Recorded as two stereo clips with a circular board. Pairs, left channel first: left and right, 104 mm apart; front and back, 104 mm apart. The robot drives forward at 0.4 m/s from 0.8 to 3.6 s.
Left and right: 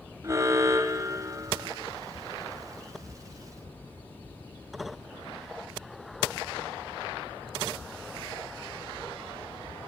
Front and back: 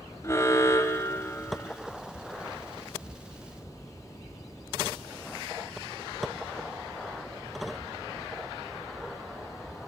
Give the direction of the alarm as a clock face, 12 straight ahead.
2 o'clock.